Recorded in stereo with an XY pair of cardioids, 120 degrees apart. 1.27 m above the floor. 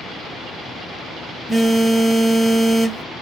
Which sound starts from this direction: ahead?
A phone buzzing, at 1.5 s.